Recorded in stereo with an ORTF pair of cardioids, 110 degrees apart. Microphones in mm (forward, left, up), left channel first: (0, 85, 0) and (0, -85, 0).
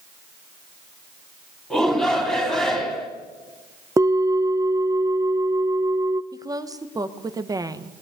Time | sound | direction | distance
1.7 | a shout | straight ahead | 3 m
4.0 | a bell | 20° right | 0.6 m
6.3 | a woman speaking | 20° right | 1.1 m